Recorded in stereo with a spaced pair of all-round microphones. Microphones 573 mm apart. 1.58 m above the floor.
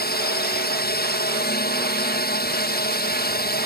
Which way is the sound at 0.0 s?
15° left (ahead or behind).